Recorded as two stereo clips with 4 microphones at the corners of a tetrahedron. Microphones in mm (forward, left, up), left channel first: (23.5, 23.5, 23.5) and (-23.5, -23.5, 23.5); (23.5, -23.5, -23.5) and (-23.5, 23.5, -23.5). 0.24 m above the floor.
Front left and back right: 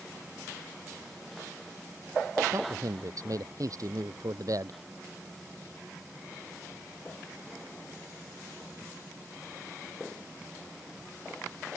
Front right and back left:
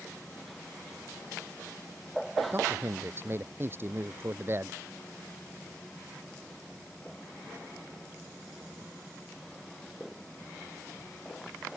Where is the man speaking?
170° right.